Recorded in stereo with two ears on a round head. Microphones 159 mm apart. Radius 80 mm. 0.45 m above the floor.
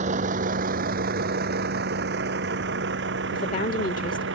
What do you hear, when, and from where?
0.0 s a vehicle: 40° right (ahead or behind); by 4.4 s 70° right (ahead or behind)
3.3 s a woman speaking: 50° left (ahead or behind)